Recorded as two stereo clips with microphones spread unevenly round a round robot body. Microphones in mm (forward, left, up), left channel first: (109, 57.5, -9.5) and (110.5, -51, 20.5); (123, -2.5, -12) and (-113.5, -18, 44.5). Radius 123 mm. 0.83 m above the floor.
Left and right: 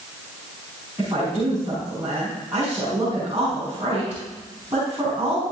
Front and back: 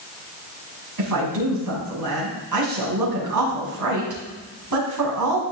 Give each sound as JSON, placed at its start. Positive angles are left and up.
{"t": 1.0, "sound": "a woman speaking", "azimuth_deg": -165, "distance_m": 5.5}